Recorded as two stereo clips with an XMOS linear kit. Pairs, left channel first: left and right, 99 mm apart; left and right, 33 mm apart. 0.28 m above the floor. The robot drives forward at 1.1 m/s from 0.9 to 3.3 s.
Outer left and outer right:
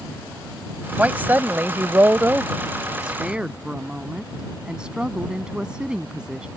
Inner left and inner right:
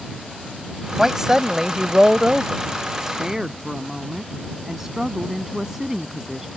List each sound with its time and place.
1.0 s a woman speaking: 15° right (ahead or behind); by 6.5 s 10° right (ahead or behind)